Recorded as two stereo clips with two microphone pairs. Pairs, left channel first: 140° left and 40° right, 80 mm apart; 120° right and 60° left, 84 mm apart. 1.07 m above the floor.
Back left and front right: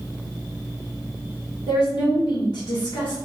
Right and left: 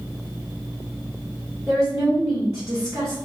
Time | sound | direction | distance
1.7 | a woman speaking | 125° left | 1.6 m